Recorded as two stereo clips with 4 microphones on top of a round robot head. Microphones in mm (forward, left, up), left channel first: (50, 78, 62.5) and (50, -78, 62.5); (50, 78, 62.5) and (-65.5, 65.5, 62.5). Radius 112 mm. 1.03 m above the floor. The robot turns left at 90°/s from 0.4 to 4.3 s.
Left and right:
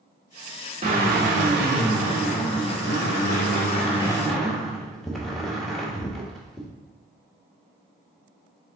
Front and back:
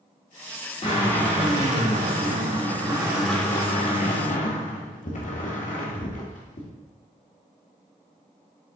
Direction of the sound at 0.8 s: 45° right.